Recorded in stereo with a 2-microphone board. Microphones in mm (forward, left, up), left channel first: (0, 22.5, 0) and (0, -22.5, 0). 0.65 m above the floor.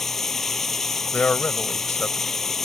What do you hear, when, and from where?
0.0 s running water: 5° left (ahead or behind)
1.1 s a man speaking: 40° left (ahead or behind)